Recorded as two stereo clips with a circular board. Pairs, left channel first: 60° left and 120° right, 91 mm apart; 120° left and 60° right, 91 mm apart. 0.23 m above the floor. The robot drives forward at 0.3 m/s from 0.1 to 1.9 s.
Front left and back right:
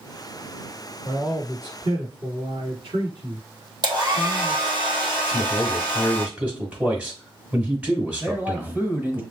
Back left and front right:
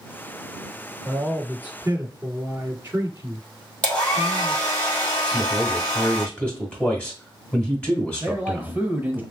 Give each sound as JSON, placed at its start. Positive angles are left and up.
{"t": 1.0, "sound": "a man speaking", "azimuth_deg": -120, "distance_m": 2.5}
{"t": 3.8, "sound": "a hair dryer", "azimuth_deg": -165, "distance_m": 1.8}
{"t": 5.3, "sound": "a man speaking", "azimuth_deg": 180, "distance_m": 1.8}
{"t": 8.2, "sound": "a man speaking", "azimuth_deg": -85, "distance_m": 1.0}